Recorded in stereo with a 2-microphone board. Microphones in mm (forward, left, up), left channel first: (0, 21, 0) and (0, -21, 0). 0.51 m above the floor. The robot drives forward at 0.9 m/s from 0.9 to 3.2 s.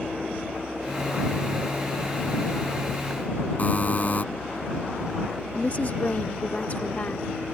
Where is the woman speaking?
40° left (ahead or behind).